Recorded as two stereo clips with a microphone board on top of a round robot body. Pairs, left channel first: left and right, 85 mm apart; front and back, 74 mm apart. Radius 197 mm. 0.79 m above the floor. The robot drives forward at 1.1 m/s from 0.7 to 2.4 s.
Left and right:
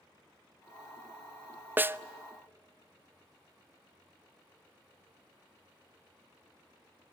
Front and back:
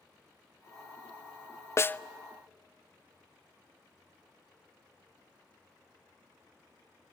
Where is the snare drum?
30° right, 0.7 m; by 2.0 s 60° right, 0.7 m.